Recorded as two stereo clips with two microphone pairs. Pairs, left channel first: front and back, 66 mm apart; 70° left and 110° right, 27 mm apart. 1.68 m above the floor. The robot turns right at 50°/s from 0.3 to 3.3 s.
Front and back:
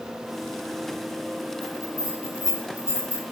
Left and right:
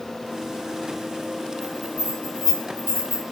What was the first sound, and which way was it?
A bell, 165° left.